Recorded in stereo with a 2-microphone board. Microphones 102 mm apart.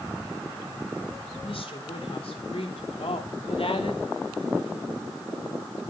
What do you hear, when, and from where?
1.4 s a woman speaking: 70° left (ahead or behind), 5 m; by 4.1 s 75° left (ahead or behind), 2.5 m